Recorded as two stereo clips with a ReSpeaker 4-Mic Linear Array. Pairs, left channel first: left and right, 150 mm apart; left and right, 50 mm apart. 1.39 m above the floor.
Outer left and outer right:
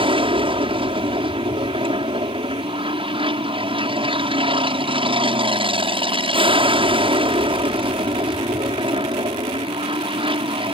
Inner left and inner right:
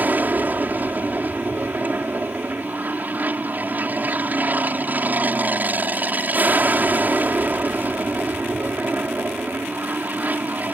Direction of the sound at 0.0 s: 35° right (ahead or behind).